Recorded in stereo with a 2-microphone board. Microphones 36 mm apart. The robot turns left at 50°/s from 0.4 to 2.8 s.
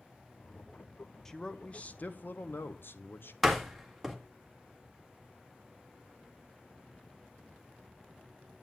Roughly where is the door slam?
Centre.